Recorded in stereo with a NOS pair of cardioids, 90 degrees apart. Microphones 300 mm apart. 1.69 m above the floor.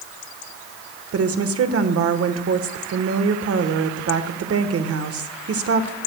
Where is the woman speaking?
50° right, 1.3 m.